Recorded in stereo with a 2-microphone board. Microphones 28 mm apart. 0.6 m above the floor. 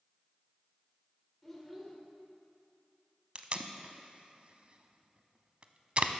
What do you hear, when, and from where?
1.4 s a child speaking: 10° left (ahead or behind), 1.6 m
3.4 s tape being pulled: 40° right (ahead or behind), 0.5 m